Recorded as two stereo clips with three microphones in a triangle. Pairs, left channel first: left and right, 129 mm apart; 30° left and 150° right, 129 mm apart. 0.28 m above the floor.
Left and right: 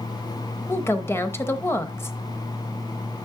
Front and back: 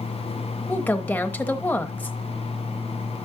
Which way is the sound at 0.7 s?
80° left.